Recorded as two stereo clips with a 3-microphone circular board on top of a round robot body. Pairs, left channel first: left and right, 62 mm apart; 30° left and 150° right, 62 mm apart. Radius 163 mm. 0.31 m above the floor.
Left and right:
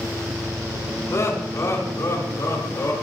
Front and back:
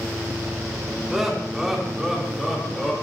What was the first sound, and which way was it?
Laughter, 125° left.